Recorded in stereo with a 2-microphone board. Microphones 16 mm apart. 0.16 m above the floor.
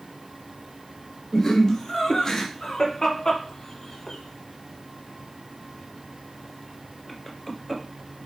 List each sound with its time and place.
1.3 s laughter: 30° left (ahead or behind), 1.9 m; by 7.8 s centre (ahead or behind), 2.5 m